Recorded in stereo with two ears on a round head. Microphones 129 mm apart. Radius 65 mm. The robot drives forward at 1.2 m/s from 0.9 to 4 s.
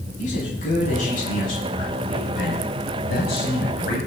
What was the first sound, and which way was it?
A man speaking, 55° left (ahead or behind).